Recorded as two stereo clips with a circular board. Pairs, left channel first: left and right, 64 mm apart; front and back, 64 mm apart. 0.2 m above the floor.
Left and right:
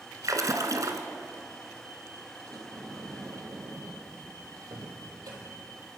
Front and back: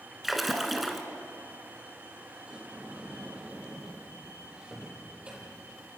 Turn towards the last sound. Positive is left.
turn(degrees=-110)